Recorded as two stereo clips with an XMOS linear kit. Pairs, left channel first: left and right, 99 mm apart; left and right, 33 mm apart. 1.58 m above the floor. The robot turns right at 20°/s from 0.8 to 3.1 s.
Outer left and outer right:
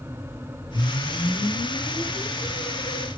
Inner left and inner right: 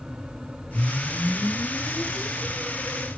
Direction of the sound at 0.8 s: 90° left.